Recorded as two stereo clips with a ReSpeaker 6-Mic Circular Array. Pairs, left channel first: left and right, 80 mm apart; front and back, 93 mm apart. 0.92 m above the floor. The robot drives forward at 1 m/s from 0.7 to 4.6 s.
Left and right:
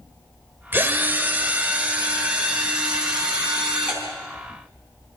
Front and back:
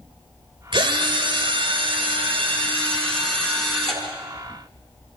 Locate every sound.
0.7 s a drill: 155° right, 2 m; by 4.0 s 170° right, 5 m